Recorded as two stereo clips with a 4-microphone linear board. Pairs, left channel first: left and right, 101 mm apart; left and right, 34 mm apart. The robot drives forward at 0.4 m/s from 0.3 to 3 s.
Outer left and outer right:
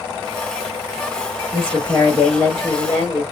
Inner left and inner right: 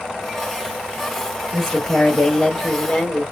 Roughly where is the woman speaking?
Centre.